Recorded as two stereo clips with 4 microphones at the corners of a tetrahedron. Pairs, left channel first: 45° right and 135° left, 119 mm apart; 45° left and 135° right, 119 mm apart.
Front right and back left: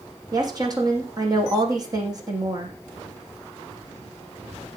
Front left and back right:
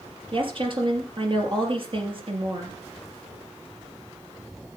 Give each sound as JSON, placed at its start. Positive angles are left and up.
{"t": 0.3, "sound": "a woman speaking", "azimuth_deg": -170, "distance_m": 3.5}